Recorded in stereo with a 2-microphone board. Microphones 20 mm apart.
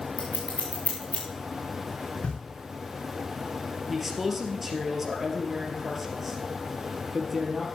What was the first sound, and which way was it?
Scissors, 75° left (ahead or behind).